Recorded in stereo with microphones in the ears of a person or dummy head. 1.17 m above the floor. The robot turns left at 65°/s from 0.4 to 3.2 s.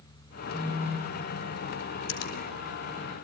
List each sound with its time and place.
0.5 s a phone buzzing: 165° right, 1.0 m; by 1.3 s 145° left, 1.0 m
2.1 s a finger snap: 85° left, 3.5 m; by 2.4 s 65° left (ahead or behind), 3.5 m